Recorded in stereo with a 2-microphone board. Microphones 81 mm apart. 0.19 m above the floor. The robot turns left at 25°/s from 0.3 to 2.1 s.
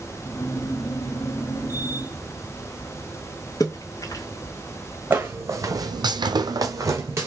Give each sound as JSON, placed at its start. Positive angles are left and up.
{"t": 3.6, "sound": "a splash", "side_deg": 55, "distance_m": 0.8}
{"t": 5.1, "sound": "footsteps", "side_deg": -25, "distance_m": 0.8}